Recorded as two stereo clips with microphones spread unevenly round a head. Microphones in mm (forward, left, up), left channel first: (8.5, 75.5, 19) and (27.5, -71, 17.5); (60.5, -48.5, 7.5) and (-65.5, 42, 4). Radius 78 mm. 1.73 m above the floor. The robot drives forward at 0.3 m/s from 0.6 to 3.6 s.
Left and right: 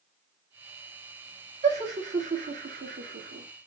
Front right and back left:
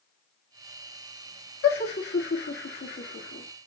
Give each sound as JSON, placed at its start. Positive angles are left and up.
{"t": 1.6, "sound": "laughter", "azimuth_deg": -45, "distance_m": 1.5}